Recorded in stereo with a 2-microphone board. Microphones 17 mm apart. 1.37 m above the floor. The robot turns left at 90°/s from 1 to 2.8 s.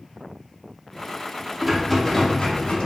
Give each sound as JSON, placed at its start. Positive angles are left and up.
{"t": 1.6, "sound": "a rattle", "azimuth_deg": -160, "distance_m": 0.5}